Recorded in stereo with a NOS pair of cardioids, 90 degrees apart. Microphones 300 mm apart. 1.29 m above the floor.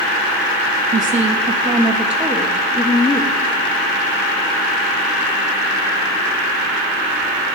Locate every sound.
0.9 s a woman speaking: 30° right, 1.3 m; by 3.4 s 15° left, 1.9 m